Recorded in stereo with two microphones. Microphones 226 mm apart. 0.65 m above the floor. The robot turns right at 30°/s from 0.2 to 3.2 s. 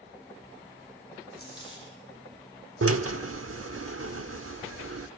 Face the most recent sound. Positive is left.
turn(degrees=-75)  # may be behind; listen again after turning